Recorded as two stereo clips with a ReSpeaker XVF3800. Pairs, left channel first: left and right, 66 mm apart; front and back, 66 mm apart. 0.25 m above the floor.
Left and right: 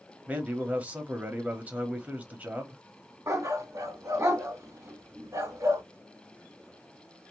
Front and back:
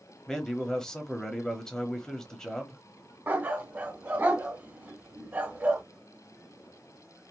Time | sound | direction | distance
0.3 | a man speaking | 65° right | 1.0 m
3.3 | a dog barking | 120° right | 1.0 m